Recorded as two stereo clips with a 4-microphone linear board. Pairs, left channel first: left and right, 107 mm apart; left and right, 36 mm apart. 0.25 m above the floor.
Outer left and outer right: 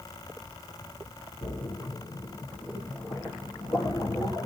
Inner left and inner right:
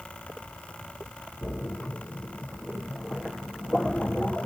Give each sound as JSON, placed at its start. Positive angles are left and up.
{"t": 1.4, "sound": "a splash", "side_deg": 35, "distance_m": 3.0}